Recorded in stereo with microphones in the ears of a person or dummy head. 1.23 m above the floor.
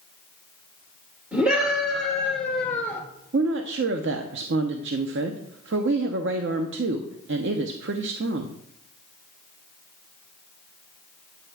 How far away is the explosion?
I don't hear an explosion.